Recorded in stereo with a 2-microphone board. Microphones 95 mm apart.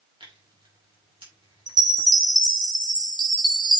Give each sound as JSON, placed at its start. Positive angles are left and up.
{"t": 0.2, "sound": "tearing paper", "side_deg": -70, "distance_m": 4.5}
{"t": 1.7, "sound": "a chime", "side_deg": -50, "distance_m": 1.5}